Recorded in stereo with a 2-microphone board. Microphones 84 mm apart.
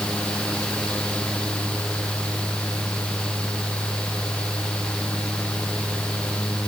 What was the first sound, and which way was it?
Only background noise.